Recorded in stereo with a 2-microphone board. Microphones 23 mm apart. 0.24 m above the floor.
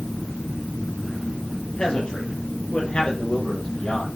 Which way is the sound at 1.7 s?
40° left (ahead or behind).